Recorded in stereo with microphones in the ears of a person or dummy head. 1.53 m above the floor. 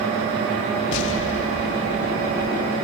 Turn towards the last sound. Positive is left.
turn(degrees=75)  # may be behind; listen again after turning